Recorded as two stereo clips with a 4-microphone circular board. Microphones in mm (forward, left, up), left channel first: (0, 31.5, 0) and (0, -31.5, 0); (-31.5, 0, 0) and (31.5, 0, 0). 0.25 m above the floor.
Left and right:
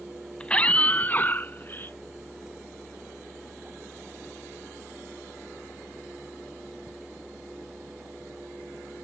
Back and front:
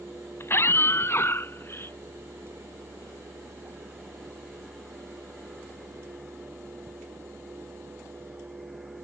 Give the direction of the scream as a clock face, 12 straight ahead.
7 o'clock.